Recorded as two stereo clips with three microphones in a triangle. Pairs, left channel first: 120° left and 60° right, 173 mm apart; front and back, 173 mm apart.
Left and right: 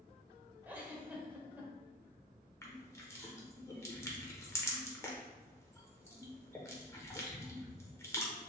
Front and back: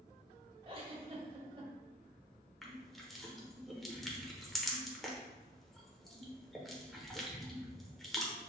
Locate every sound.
0.7 s a giggle: 135° right, 0.9 m
2.6 s crushing: 85° left, 0.9 m